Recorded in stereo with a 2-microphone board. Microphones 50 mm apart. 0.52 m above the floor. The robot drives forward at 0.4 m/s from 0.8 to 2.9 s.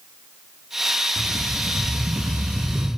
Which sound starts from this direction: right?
A rattle, at 1.2 s.